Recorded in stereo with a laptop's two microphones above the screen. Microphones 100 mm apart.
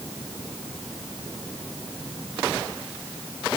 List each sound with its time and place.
Only background noise.